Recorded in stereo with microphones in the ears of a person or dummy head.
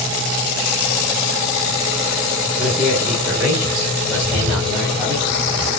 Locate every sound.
2.6 s a man speaking: centre (ahead or behind), 1.4 m; by 5.1 s 5° right (ahead or behind), 4 m
4.1 s a bird: 5° right (ahead or behind), 3.5 m